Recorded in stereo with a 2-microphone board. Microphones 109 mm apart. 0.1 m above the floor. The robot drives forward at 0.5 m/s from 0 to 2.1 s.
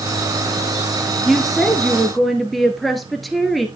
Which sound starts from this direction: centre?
A woman speaking, at 1.2 s.